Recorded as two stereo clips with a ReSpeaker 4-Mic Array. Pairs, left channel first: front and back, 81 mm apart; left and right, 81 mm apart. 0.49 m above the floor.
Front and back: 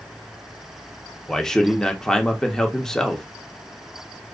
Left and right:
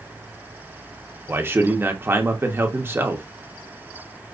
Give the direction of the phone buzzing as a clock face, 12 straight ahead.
I don't hear a phone buzzing.